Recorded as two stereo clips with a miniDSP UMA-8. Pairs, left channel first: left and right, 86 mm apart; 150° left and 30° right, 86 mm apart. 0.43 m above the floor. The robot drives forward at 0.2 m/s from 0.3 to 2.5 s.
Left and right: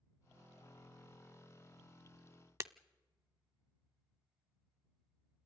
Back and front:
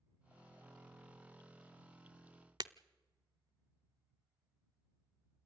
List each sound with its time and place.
2.6 s breaking glass: 45° right, 0.5 m